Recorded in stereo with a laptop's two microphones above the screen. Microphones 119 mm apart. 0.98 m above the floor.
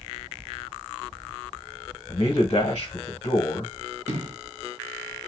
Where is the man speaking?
50° left (ahead or behind), 0.9 m.